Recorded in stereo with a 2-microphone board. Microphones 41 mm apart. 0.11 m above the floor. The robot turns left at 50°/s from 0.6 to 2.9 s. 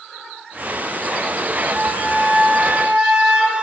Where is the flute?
Straight ahead, 1.0 m; by 3.6 s 60° right, 1.0 m.